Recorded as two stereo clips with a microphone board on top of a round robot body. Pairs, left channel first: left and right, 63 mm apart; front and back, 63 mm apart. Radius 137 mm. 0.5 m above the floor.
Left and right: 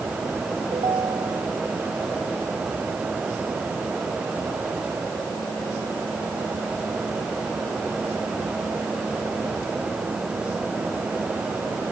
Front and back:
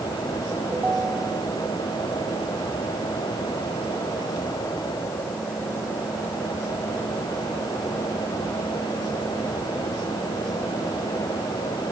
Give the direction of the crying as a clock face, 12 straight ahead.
I don't hear crying.